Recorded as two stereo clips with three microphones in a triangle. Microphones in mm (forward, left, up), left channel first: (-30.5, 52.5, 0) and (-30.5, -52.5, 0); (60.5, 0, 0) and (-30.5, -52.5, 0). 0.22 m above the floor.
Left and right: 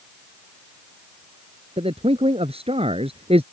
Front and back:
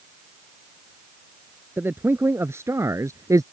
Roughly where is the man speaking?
Right.